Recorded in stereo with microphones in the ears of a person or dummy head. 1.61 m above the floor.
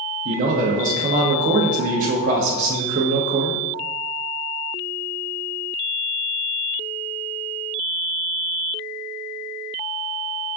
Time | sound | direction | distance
0.2 | a man speaking | 50° right (ahead or behind) | 0.7 m